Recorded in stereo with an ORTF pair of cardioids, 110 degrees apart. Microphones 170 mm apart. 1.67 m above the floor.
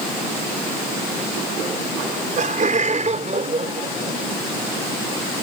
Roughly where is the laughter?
Ahead right.